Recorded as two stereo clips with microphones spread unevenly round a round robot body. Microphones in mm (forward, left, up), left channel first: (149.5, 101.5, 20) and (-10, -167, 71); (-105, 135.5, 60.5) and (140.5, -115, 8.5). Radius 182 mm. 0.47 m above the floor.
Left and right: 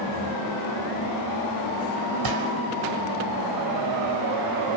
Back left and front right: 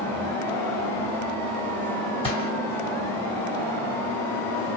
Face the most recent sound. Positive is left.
turn(degrees=-150)